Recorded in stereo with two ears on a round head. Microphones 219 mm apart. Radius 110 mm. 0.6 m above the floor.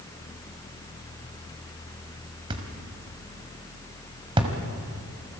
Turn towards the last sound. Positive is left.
turn(degrees=-20)  # may be behind; listen again after turning